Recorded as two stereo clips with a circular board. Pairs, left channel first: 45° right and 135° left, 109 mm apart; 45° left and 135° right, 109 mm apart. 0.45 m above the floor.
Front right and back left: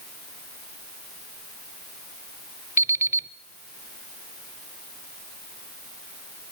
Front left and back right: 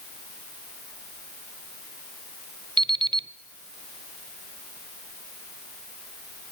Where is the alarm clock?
165° right, 0.8 m.